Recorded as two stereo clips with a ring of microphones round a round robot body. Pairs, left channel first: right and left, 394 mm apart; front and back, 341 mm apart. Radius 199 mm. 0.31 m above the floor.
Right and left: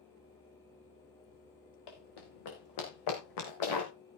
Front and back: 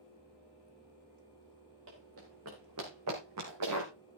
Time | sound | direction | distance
1.9 | running footsteps | 120° right | 5.5 m